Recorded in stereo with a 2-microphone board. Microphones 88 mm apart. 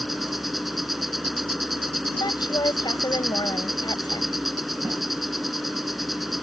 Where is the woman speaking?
55° left (ahead or behind).